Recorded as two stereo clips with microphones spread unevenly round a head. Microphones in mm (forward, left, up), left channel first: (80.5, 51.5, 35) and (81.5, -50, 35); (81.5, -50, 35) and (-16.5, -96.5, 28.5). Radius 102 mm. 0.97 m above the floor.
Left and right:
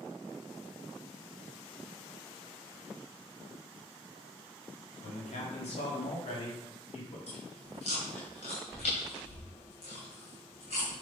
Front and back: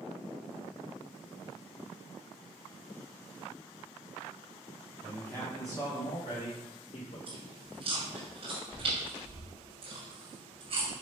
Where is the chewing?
145° left, 2.5 m.